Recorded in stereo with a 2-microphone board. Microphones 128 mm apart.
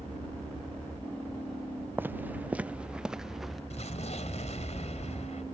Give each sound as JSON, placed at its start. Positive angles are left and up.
{"t": 2.0, "sound": "footsteps", "side_deg": -15}
{"t": 3.7, "sound": "an explosion", "side_deg": 60}